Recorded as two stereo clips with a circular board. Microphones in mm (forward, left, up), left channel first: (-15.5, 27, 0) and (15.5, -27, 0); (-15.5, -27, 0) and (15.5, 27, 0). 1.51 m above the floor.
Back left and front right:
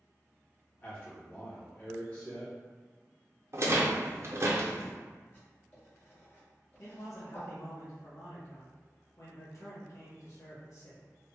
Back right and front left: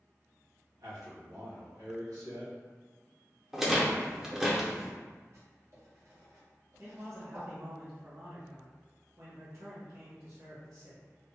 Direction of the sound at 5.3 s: 70° left.